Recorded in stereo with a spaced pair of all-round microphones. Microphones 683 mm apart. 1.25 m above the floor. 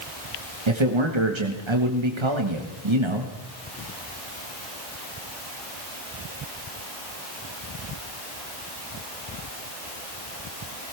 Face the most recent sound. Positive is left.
turn(degrees=-40)  # may be behind; listen again after turning